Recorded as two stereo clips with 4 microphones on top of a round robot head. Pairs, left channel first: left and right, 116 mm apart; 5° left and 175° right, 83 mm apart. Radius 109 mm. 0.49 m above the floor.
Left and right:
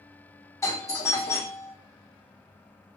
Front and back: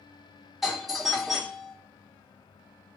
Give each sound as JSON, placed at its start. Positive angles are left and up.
{"t": 0.6, "sound": "a doorbell", "azimuth_deg": 100, "distance_m": 1.3}